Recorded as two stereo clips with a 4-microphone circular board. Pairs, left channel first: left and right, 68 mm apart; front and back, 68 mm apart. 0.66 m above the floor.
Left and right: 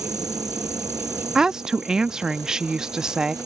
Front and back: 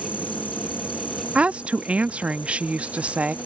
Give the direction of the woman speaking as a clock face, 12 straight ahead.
5 o'clock.